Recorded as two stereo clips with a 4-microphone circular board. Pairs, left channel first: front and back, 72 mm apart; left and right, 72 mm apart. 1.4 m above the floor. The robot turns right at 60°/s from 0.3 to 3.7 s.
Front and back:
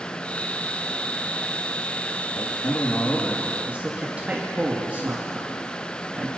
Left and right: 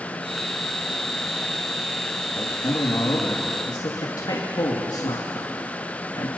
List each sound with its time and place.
2.4 s a man speaking: 30° left, 3 m; by 6.3 s 110° left, 3 m